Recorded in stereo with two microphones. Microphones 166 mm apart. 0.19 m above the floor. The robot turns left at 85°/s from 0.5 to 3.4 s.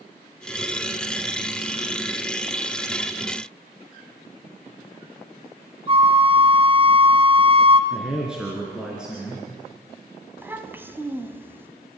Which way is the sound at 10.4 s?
15° right (ahead or behind).